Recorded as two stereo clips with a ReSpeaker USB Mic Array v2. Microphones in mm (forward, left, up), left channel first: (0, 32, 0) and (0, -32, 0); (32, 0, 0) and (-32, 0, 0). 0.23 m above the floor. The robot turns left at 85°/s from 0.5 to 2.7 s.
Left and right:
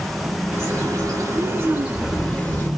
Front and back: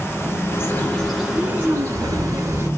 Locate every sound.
0.5 s a bird: 30° right, 3 m; by 2.7 s 145° left, 3 m